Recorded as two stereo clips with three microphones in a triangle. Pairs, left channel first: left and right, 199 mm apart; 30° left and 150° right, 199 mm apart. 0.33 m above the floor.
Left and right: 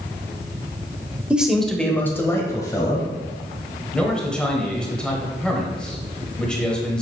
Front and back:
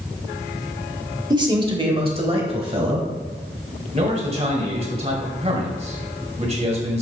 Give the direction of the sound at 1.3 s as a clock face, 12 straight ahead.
5 o'clock.